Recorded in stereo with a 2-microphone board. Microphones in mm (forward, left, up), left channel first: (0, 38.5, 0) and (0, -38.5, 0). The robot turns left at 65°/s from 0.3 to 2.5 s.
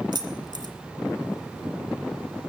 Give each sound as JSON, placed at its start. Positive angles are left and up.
{"t": 0.1, "sound": "keys jangling", "side_deg": -65, "distance_m": 1.8}